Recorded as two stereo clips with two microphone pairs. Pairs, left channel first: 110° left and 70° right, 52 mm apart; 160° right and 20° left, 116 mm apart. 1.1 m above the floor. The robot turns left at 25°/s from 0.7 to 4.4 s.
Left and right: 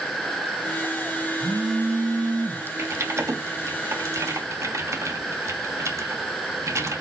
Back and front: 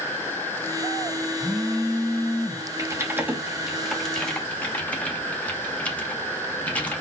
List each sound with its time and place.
1.4 s a phone buzzing: 65° right, 0.9 m; by 2.7 s 100° right, 0.9 m
2.8 s typing on a keyboard: 45° right, 1.2 m; by 7.0 s 85° right, 1.2 m